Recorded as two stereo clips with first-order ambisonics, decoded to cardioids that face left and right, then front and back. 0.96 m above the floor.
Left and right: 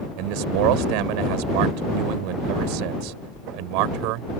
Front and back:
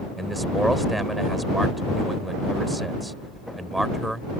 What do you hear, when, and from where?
0.2 s a man speaking: 95° right